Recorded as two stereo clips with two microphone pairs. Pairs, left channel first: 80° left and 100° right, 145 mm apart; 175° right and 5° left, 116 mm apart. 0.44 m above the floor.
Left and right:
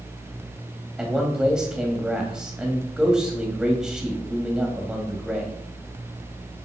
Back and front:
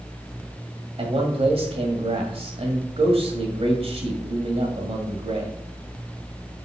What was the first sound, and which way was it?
A man speaking, 15° right.